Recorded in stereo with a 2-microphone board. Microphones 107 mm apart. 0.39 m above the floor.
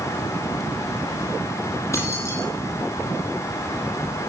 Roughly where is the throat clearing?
No throat clearing in this recording.